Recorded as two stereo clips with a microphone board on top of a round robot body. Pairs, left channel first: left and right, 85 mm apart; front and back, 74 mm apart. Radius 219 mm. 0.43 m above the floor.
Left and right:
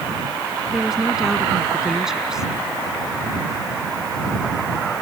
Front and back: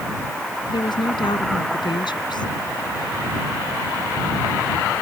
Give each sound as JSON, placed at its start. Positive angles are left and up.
{"t": 0.7, "sound": "a woman speaking", "azimuth_deg": -5}